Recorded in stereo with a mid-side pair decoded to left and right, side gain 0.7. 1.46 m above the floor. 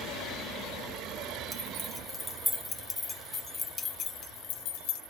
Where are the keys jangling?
15° right, 2 m; by 5.0 s 65° left, 1.5 m.